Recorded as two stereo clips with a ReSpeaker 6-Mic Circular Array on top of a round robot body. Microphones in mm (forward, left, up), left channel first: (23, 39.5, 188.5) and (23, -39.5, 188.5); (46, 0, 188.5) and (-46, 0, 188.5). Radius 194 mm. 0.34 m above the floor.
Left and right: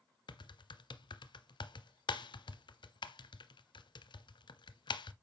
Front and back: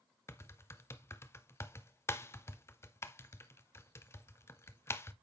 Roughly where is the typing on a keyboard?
Ahead left.